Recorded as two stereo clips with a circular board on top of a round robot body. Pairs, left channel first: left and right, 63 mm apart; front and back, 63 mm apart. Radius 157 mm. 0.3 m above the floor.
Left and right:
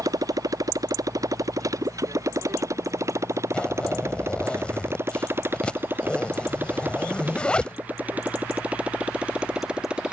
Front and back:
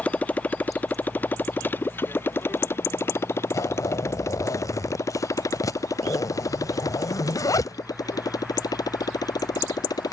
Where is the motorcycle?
65° right; by 10.1 s 15° right.